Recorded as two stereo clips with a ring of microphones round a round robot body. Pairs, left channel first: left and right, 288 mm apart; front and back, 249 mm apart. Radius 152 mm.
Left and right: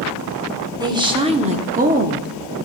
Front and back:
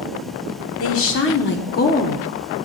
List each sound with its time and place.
0.8 s a woman speaking: 15° right, 1.5 m; by 2.7 s 75° right, 1.0 m